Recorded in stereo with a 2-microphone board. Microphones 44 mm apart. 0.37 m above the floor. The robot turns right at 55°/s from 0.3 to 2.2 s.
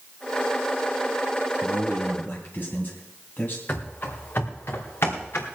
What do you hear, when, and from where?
1.6 s a man speaking: 20° left, 2.5 m; by 3.6 s 50° left, 2.5 m
3.7 s running footsteps: 40° left (ahead or behind), 2.5 m; by 5.5 s 65° left (ahead or behind), 3 m